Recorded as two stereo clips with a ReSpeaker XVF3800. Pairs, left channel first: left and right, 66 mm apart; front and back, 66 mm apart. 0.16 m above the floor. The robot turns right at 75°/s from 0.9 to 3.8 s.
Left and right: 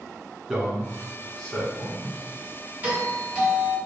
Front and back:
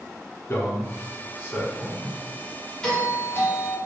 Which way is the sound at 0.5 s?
15° right.